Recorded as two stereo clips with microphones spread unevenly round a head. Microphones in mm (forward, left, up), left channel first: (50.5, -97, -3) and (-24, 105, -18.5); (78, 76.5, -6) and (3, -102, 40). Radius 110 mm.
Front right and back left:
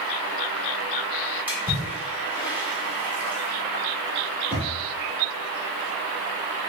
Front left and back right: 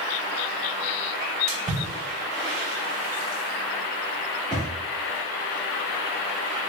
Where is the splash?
165° right, 1.5 m.